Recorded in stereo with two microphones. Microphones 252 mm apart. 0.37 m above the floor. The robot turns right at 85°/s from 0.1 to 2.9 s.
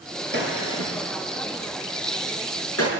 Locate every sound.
0.3 s a gunshot: 40° right (ahead or behind), 6 m; by 2.9 s 75° left (ahead or behind), 6 m